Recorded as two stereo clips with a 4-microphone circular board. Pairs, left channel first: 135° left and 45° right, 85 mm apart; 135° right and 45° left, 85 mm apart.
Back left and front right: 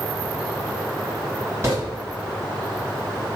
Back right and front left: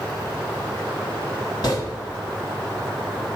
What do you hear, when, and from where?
1.6 s footsteps: 105° right, 1.9 m